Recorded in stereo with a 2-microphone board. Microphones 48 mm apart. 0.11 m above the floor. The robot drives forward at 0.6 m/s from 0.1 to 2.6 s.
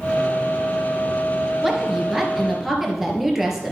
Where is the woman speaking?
5° right (ahead or behind), 1.9 m.